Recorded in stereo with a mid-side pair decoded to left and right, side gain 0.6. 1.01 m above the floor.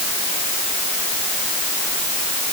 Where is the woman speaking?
No woman speaking in this recording.